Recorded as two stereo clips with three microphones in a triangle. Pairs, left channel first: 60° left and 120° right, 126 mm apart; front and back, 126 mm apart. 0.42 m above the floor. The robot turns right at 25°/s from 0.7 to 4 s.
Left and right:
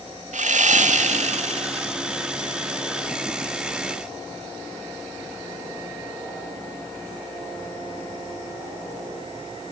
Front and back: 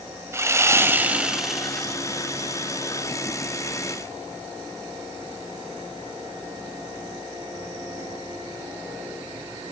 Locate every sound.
0.3 s sawing: 115° right, 0.9 m; by 1.9 s 80° right, 0.9 m